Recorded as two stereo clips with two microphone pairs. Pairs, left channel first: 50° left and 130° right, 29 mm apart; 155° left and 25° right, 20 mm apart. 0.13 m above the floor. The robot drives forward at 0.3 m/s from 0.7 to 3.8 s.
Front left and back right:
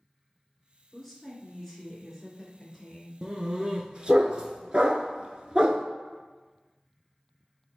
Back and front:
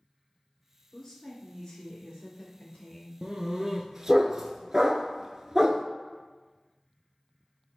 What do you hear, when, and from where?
0.9 s a woman speaking: 125° left, 1.8 m; by 3.1 s 145° left, 2 m
3.2 s a dog barking: 65° right, 0.7 m; by 5.8 s 85° right, 0.6 m